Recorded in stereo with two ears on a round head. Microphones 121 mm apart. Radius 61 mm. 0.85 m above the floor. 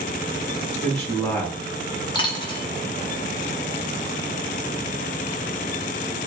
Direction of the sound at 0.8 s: 20° left (ahead or behind).